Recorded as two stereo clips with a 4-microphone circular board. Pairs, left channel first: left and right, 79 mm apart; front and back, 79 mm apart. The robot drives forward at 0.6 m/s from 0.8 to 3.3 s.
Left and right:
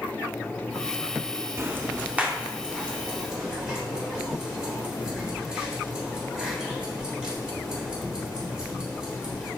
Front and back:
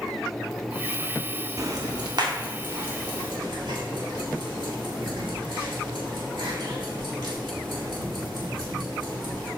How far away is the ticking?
About 0.5 m.